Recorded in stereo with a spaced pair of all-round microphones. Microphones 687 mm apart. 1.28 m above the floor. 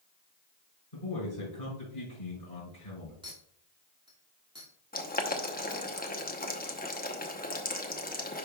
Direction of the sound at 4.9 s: 15° left (ahead or behind).